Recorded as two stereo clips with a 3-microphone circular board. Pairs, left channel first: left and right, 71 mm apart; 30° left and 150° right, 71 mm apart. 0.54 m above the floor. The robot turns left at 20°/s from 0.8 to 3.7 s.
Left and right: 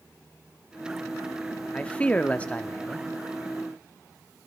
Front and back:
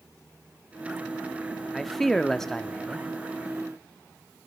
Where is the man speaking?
110° left, 0.6 m; by 3.1 s 85° left, 0.6 m.